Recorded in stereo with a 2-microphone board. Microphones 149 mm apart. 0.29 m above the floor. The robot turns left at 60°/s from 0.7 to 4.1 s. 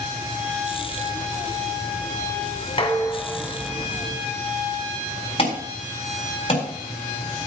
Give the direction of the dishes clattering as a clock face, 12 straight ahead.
11 o'clock.